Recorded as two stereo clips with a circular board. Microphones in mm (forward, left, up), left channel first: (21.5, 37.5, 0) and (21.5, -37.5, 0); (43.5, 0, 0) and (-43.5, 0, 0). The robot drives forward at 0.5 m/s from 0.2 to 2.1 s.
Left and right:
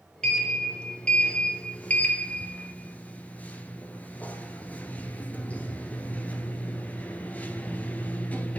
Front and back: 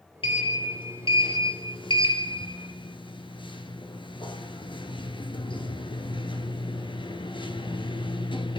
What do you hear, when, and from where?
0.2 s a sliding door: 10° left, 2.5 m; by 8.6 s 20° left, 1.7 m